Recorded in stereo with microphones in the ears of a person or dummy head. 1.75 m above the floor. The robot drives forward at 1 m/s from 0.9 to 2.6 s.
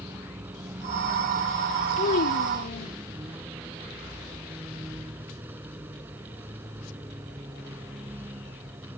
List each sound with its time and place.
0.0 s a vehicle: 10° right (ahead or behind)
2.0 s a child speaking: 45° left (ahead or behind); by 2.9 s 55° left (ahead or behind)